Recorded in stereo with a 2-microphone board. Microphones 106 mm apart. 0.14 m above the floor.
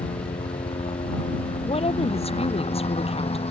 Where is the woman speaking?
70° left (ahead or behind).